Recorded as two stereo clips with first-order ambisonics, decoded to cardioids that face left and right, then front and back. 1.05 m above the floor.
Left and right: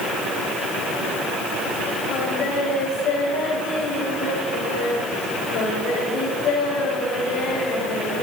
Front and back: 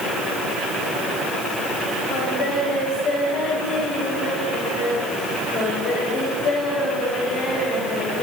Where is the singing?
40° left, 6.5 m.